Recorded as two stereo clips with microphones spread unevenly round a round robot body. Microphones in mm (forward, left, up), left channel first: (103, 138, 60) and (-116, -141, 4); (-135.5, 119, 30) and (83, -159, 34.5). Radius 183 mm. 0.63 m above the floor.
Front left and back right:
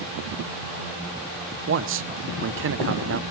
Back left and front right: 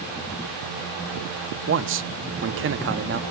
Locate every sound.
1.7 s a man speaking: 95° right, 0.7 m